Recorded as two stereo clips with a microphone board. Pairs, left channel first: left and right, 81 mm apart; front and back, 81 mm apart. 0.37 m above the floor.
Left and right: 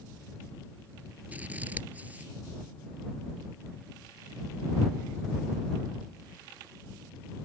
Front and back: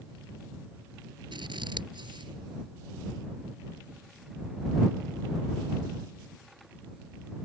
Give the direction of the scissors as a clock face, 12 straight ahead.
5 o'clock.